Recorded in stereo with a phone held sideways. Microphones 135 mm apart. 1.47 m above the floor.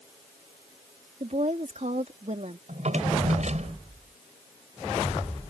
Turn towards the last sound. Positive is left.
turn(degrees=-60)  # may be behind; listen again after turning